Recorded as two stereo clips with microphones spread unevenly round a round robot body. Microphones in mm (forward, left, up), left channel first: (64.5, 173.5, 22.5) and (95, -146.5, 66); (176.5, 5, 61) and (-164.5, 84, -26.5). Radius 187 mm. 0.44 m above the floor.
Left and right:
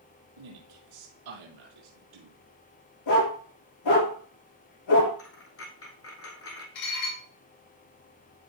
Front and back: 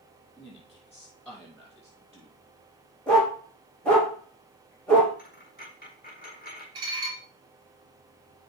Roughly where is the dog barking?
Left.